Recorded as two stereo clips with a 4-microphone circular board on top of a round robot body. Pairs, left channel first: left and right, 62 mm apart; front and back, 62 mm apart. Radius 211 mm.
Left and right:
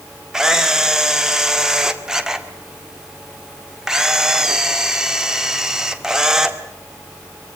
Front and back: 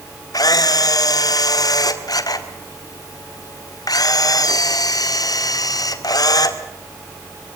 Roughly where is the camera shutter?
Ahead.